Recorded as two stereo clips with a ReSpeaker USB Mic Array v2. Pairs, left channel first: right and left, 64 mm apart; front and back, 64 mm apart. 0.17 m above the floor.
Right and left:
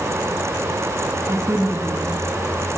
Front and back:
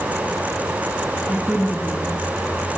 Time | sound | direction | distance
1.3 | a woman speaking | 50° left | 1.3 m